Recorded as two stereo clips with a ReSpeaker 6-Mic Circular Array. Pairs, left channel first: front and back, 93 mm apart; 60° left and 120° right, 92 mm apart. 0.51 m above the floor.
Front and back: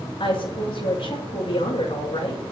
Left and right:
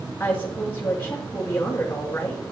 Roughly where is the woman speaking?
Ahead.